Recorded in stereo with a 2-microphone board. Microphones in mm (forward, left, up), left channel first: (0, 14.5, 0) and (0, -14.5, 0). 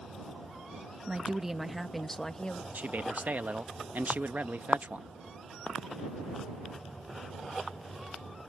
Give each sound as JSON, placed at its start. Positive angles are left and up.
{"t": 1.1, "sound": "a woman speaking", "side_deg": -25}
{"t": 2.7, "sound": "a man speaking", "side_deg": -70}